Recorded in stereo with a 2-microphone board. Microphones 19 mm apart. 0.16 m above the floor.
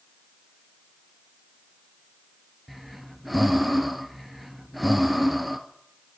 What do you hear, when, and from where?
2.7 s breathing: 5° right (ahead or behind), 0.7 m